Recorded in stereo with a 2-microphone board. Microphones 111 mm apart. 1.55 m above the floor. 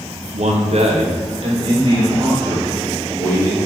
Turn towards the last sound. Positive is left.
turn(degrees=-30)  # may be behind; listen again after turning